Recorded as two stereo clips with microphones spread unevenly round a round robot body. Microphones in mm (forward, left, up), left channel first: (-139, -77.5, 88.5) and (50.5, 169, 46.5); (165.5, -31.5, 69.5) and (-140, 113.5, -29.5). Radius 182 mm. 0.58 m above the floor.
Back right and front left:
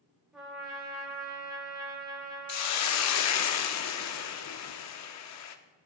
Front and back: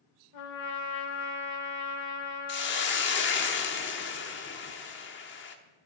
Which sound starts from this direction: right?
A hiss, at 2.5 s.